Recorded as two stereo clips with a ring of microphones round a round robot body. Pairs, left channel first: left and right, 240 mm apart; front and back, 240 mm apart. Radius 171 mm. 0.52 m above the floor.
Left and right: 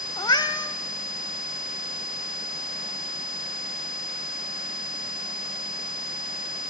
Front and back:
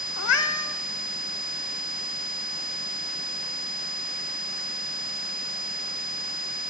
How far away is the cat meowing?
About 0.7 m.